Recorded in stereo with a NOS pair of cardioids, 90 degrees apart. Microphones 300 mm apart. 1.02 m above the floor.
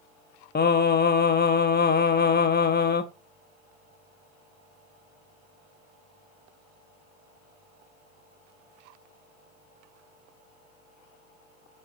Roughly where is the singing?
Ahead left.